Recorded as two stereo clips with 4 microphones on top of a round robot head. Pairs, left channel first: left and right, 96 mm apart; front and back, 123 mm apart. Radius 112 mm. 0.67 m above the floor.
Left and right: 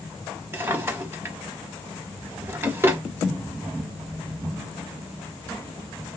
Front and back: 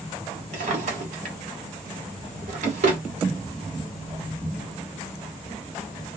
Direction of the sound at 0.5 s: 155° right.